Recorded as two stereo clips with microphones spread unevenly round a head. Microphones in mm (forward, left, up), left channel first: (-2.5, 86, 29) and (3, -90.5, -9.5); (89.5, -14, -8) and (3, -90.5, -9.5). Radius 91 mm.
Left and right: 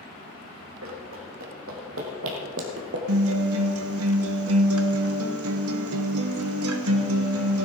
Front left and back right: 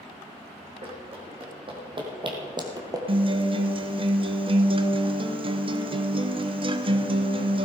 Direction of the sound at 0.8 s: 105° right.